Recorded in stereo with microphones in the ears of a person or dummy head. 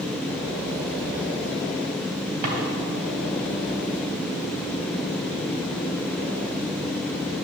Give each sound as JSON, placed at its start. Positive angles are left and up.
{"t": 2.4, "sound": "a drawer", "side_deg": -55, "distance_m": 3.0}